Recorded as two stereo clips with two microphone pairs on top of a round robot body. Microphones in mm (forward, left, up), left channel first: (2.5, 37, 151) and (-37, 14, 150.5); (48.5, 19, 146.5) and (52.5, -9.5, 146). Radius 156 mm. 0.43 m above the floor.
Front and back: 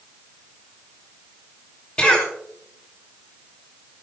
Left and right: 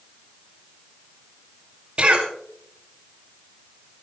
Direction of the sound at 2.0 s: 35° right.